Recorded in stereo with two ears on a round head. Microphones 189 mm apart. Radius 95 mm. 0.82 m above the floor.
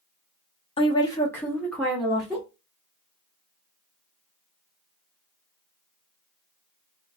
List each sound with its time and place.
0.8 s a woman speaking: 30° left (ahead or behind), 0.7 m; by 2.5 s 5° right (ahead or behind), 1.5 m